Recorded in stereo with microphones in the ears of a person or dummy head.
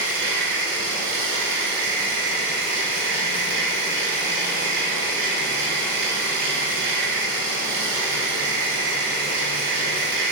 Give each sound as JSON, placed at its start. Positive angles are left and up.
{"t": 0.0, "sound": "a machine running", "side_deg": -65, "distance_m": 1.6}